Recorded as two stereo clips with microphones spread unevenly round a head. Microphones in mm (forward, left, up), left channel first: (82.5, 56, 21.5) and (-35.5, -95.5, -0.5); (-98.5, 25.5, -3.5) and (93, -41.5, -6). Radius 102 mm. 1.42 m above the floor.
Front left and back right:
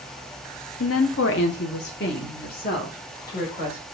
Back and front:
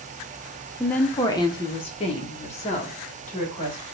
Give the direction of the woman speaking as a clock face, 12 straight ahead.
10 o'clock.